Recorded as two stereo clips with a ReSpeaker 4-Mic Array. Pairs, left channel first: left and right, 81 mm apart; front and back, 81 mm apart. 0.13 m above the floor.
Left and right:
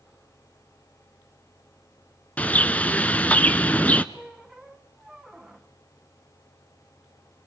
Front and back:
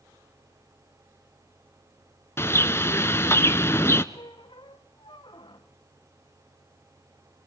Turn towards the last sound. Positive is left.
turn(degrees=-5)